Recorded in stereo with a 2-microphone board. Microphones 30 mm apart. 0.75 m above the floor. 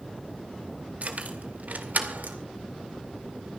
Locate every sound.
1.0 s keys jangling: 55° right (ahead or behind), 2.5 m; by 2.4 s 80° right, 2 m